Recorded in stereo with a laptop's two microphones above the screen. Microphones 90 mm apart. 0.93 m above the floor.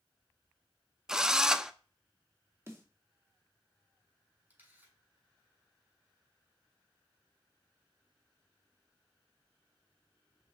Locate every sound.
1.1 s a drill: 5° right (ahead or behind), 0.6 m
2.7 s a snare drum: 30° right (ahead or behind), 2 m
4.5 s a camera shutter: 20° right (ahead or behind), 5.5 m